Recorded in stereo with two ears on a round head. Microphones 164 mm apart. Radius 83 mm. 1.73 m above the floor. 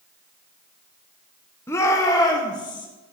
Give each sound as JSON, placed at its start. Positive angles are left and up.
{"t": 1.7, "sound": "a shout", "side_deg": 15, "distance_m": 1.2}